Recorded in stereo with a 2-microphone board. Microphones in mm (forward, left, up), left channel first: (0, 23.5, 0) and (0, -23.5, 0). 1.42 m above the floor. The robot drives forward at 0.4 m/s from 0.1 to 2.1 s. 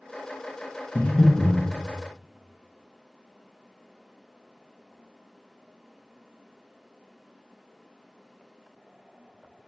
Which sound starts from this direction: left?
Breathing, at 0.9 s.